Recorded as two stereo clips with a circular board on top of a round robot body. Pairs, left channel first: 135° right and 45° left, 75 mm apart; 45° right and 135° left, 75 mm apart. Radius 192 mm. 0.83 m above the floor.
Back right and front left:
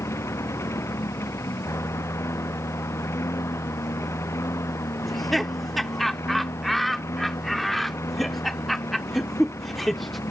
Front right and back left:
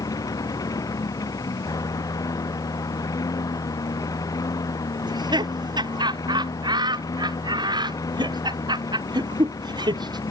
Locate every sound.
0.0 s a lawn mower: 80° right
5.0 s laughter: 135° left